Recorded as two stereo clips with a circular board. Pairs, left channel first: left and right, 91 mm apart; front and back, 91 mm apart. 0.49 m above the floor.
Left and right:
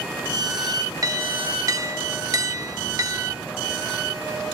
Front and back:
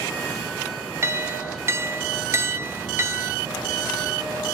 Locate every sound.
1.0 s a clink: 125° right, 1.1 m